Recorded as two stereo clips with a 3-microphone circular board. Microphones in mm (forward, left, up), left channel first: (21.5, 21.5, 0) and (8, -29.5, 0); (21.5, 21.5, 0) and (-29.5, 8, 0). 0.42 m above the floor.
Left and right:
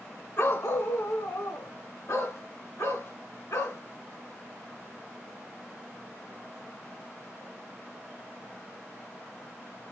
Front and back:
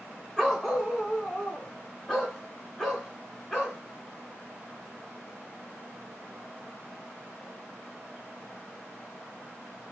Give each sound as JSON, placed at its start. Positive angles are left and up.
{"t": 0.4, "sound": "a dog barking", "azimuth_deg": 100, "distance_m": 1.6}